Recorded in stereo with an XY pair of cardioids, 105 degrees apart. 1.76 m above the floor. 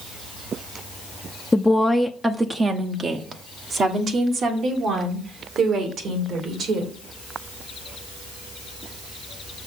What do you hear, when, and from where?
1.5 s a woman speaking: 15° left, 0.7 m; by 6.9 s 70° right, 3 m